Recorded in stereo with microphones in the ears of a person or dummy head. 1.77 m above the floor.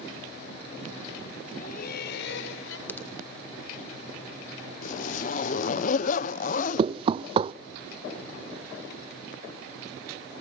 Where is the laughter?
50° left (ahead or behind), 2 m; by 2.8 s 75° left (ahead or behind), 2.5 m.